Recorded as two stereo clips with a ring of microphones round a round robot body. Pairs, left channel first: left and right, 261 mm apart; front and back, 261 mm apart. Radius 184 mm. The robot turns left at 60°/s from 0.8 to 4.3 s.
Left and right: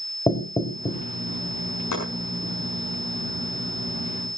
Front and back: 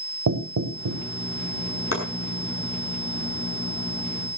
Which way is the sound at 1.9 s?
40° left.